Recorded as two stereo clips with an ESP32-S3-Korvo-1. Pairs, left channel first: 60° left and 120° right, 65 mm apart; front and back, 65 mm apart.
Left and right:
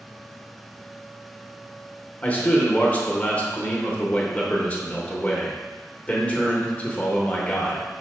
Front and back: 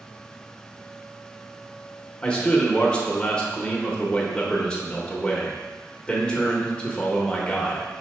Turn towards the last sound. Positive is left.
turn(degrees=45)